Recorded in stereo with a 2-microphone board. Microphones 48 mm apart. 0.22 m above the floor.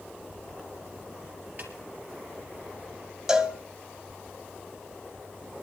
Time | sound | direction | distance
1.6 | a snare drum | 35° right (ahead or behind) | 3.5 m
3.3 | a cowbell | 15° right (ahead or behind) | 1.6 m